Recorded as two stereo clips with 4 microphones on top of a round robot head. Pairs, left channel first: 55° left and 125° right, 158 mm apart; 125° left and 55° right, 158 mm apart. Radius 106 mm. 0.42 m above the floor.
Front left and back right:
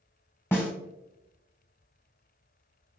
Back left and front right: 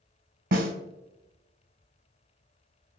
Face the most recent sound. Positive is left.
turn(degrees=-20)